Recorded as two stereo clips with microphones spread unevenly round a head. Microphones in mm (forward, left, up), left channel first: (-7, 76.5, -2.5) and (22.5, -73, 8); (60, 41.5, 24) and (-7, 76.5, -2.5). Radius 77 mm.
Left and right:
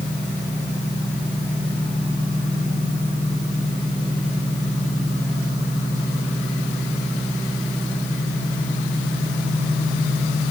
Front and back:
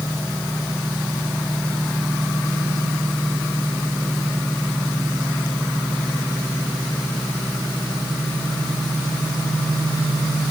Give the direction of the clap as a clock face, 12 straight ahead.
I don't hear a clap.